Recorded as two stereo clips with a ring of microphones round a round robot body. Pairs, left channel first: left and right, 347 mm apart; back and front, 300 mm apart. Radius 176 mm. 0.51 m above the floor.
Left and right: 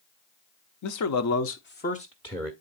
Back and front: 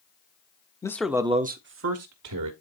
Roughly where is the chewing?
No chewing in this recording.